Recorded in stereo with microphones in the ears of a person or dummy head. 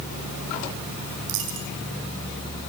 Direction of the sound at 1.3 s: 70° right (ahead or behind).